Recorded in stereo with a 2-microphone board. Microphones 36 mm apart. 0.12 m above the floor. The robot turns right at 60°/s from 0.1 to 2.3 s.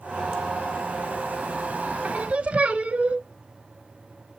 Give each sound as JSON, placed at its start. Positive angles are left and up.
{"t": 2.0, "sound": "singing", "side_deg": -40, "distance_m": 0.9}